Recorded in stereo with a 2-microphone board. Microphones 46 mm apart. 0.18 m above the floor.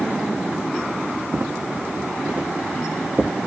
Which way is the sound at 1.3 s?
55° right (ahead or behind).